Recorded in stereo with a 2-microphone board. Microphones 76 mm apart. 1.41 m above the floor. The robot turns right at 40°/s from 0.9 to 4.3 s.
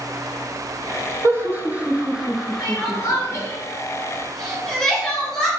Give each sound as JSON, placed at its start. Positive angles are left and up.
{"t": 1.2, "sound": "laughter", "side_deg": -35, "distance_m": 0.6}
{"t": 2.6, "sound": "crying", "side_deg": 80, "distance_m": 1.4}